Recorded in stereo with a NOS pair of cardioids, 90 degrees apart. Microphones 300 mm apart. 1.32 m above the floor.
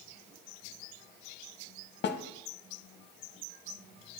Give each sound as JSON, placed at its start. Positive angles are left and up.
{"t": 2.0, "sound": "a snare drum", "azimuth_deg": 35, "distance_m": 0.7}